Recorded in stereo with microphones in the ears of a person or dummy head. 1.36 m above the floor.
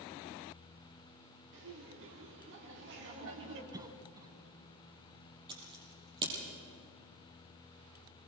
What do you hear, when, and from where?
1.5 s laughter: 65° right (ahead or behind), 3 m; by 3.6 s 60° right (ahead or behind), 4 m
3.7 s a cough: 15° right (ahead or behind), 1.0 m
5.5 s scissors: 25° right (ahead or behind), 6 m